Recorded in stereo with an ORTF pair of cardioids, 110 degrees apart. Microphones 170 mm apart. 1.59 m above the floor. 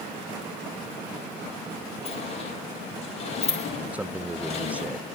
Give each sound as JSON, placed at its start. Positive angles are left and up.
{"t": 2.0, "sound": "a sliding door", "azimuth_deg": 40, "distance_m": 9.0}
{"t": 3.9, "sound": "a man speaking", "azimuth_deg": -10, "distance_m": 0.7}